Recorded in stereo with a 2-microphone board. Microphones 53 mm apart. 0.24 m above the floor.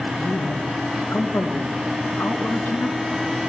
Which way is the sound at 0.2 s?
50° left (ahead or behind).